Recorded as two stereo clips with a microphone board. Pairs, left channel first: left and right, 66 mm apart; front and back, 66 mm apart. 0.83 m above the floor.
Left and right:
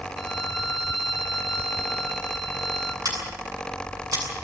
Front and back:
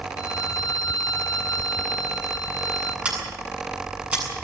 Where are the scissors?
110° right, 8 m.